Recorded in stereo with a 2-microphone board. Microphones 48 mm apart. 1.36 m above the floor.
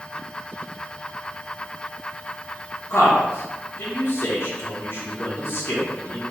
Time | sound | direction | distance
2.9 | a man speaking | 55° left (ahead or behind) | 0.9 m